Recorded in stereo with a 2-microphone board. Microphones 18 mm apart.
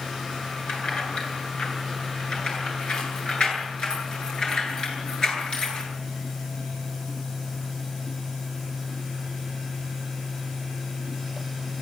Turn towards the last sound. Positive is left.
turn(degrees=50)  # may be behind; listen again after turning